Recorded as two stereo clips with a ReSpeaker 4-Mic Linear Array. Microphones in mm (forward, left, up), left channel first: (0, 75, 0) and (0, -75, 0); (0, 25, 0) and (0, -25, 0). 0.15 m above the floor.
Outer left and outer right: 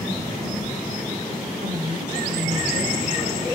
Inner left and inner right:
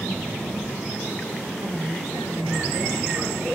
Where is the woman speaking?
50° right (ahead or behind), 9.5 m.